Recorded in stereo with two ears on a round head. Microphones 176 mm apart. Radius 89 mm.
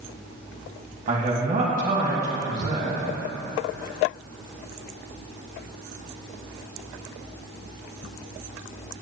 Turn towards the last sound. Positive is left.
turn(degrees=-35)  # may be behind; listen again after turning